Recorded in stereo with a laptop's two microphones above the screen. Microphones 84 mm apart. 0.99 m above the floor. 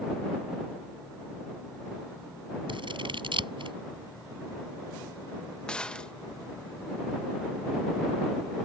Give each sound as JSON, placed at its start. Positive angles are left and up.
{"t": 2.7, "sound": "scissors", "side_deg": -85}
{"t": 5.7, "sound": "a gunshot", "side_deg": 10}